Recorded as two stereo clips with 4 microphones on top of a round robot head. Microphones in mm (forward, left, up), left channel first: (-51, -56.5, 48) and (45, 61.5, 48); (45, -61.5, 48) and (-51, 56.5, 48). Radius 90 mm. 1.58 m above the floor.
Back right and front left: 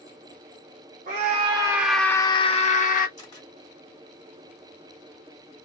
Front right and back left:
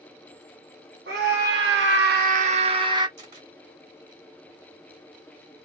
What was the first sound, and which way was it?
A scream, 95° left.